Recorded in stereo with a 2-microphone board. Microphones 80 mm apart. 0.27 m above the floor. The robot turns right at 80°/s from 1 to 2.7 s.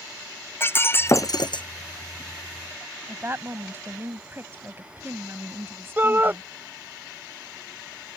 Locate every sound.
0.6 s breaking glass: 30° left; by 1.6 s 80° left
3.1 s a woman speaking: 30° right (ahead or behind)
6.0 s a shout: 25° right (ahead or behind)